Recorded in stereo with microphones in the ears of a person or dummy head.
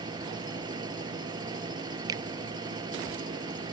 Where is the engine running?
25° right (ahead or behind).